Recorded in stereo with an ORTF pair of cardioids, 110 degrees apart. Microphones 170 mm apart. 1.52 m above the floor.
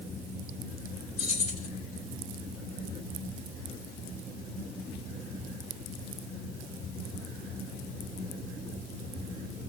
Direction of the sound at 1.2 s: 70° left.